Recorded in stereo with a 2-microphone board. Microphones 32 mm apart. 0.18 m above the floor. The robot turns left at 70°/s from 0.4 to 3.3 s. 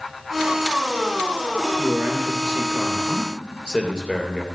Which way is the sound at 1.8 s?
90° right.